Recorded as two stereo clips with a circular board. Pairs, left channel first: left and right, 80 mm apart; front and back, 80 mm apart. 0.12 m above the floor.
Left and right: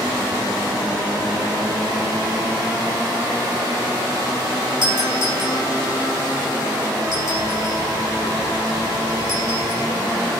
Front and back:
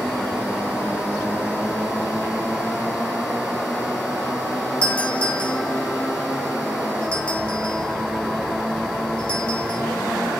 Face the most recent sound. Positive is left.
turn(degrees=-75)